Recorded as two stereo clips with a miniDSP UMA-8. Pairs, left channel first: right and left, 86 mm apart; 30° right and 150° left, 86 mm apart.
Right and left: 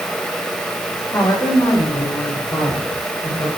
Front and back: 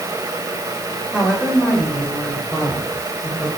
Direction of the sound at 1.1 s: 125° right.